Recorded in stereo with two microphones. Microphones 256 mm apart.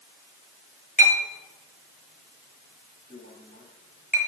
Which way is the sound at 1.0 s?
30° left (ahead or behind).